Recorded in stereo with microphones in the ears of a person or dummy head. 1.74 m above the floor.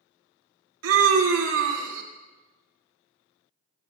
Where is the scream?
80° right, 1.6 m.